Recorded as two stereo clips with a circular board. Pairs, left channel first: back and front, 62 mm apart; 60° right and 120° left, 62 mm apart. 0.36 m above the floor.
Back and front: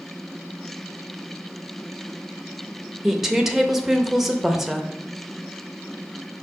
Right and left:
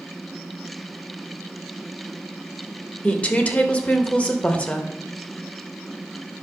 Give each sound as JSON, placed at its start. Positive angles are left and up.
{"t": 3.0, "sound": "a woman speaking", "azimuth_deg": -80, "distance_m": 0.8}